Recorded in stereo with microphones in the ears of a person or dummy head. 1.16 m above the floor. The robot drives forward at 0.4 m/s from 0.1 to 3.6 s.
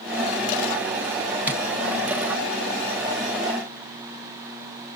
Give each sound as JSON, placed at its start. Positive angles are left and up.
{"t": 1.5, "sound": "tapping", "side_deg": -10, "distance_m": 1.5}